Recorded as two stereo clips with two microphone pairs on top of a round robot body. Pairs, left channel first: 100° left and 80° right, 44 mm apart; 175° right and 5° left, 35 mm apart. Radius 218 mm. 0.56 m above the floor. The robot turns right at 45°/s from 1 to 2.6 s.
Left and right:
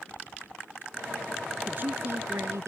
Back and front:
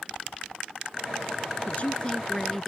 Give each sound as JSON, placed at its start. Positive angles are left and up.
{"t": 1.7, "sound": "a man speaking", "azimuth_deg": -135}